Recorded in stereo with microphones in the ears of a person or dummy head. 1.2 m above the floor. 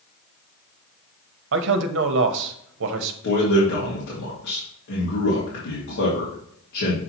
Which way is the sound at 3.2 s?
70° left (ahead or behind).